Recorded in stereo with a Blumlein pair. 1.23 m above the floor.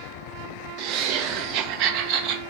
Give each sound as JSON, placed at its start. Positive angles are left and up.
{"t": 0.8, "sound": "laughter", "azimuth_deg": -40, "distance_m": 0.6}